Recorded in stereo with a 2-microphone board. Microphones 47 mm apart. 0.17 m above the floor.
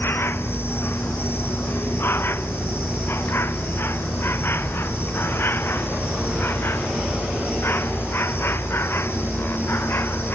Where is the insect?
55° left (ahead or behind).